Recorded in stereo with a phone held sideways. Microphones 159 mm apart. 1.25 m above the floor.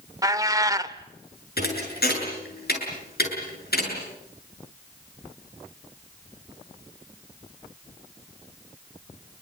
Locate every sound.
0.2 s a cat meowing: 20° right (ahead or behind), 1.0 m
1.6 s a thud: 75° left (ahead or behind), 7.5 m